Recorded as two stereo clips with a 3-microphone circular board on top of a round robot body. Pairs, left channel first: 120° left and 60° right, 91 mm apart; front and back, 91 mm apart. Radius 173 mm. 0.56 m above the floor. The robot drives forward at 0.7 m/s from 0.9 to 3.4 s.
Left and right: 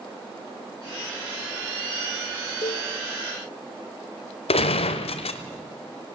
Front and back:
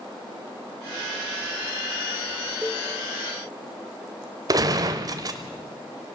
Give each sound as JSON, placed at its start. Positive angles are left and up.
{"t": 2.6, "sound": "a cowbell", "azimuth_deg": 105, "distance_m": 1.0}
{"t": 4.5, "sound": "a gunshot", "azimuth_deg": 130, "distance_m": 0.8}